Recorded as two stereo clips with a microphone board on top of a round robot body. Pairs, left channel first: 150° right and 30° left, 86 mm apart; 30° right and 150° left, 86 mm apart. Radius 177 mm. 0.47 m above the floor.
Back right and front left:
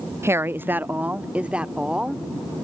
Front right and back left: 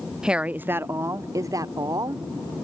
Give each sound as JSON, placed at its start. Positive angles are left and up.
{"t": 0.2, "sound": "a woman speaking", "azimuth_deg": 70}